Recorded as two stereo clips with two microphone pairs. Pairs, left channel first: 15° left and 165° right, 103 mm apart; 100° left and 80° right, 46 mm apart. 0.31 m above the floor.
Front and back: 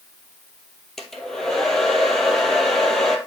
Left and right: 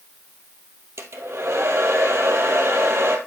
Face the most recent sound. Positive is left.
turn(degrees=-70)